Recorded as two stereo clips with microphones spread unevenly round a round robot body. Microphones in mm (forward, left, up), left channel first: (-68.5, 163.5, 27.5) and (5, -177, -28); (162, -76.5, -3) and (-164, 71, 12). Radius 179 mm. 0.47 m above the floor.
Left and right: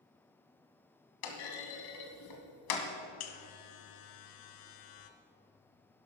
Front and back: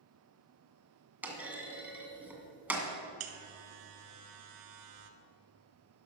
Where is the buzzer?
125° left, 1.3 m.